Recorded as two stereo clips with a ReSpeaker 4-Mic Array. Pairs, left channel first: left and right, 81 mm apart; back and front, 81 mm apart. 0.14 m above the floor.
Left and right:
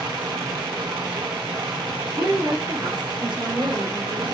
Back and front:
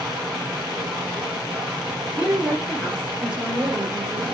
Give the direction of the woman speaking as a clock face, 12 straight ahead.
2 o'clock.